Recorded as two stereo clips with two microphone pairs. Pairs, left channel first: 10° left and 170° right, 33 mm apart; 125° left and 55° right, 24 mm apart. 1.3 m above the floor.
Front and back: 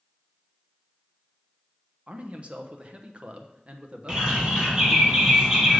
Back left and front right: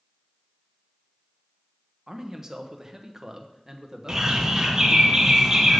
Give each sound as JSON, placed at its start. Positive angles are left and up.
{"t": 2.1, "sound": "a man speaking", "azimuth_deg": -120, "distance_m": 0.9}
{"t": 4.1, "sound": "a bird", "azimuth_deg": -105, "distance_m": 1.8}